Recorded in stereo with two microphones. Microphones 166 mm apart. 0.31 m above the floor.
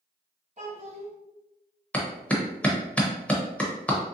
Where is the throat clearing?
No throat clearing in this recording.